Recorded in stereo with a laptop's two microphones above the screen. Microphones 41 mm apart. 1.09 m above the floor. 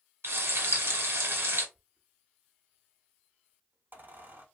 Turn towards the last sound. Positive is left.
turn(degrees=-50)  # may be behind; listen again after turning